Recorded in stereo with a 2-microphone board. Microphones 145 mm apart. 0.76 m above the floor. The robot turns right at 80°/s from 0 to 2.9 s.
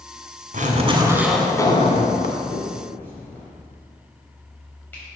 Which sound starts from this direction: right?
A finger snap, at 2.5 s.